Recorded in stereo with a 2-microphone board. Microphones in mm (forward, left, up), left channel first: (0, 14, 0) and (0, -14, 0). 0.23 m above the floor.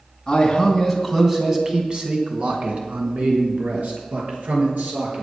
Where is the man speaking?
20° left (ahead or behind), 2.5 m; by 5.2 s 75° right (ahead or behind), 5.5 m.